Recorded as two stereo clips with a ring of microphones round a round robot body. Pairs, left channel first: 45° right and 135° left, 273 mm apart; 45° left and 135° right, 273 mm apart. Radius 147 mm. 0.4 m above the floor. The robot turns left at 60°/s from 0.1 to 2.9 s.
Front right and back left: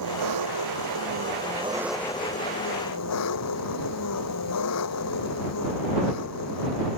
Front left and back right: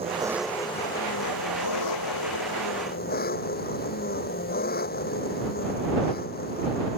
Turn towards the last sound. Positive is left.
turn(degrees=-15)